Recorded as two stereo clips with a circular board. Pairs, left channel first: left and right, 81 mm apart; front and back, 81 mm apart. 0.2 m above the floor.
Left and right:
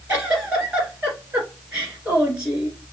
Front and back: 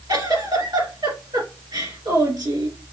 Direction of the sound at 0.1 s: 160° right.